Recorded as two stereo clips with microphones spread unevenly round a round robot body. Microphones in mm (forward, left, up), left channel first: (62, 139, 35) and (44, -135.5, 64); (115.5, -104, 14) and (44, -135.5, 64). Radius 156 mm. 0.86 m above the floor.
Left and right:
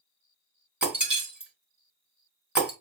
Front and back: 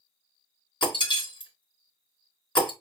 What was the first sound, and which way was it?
Breaking glass, 10° right.